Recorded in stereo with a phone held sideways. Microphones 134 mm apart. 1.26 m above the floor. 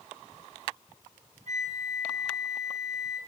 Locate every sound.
1.5 s a flute: 60° right (ahead or behind), 5 m